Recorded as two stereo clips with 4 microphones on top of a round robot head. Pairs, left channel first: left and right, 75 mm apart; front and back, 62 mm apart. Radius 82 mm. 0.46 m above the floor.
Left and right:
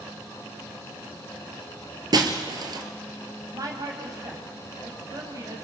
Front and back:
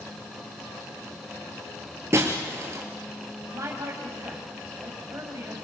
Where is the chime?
I don't hear a chime.